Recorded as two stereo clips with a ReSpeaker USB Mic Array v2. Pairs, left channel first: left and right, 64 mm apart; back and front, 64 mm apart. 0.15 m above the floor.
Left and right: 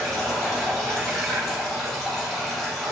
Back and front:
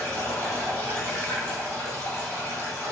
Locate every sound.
0.0 s running water: 175° left, 1.5 m